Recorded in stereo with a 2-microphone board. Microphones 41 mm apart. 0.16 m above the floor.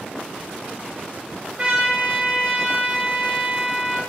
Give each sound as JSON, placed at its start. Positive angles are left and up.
{"t": 1.6, "sound": "a trumpet", "side_deg": -30, "distance_m": 2.5}